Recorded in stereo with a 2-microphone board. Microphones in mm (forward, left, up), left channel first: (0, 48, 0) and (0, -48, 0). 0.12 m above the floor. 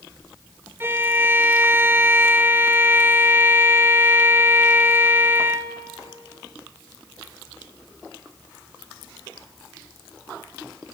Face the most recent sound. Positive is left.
turn(degrees=-25)  # may be behind; listen again after turning